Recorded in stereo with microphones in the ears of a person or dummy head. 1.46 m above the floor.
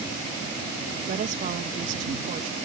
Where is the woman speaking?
45° right (ahead or behind).